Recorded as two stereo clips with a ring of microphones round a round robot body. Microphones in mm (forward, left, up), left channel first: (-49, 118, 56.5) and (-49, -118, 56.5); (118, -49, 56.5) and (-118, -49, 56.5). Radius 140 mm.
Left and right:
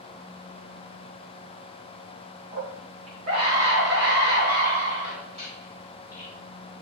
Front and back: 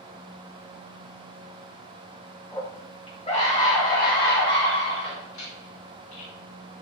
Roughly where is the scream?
Right.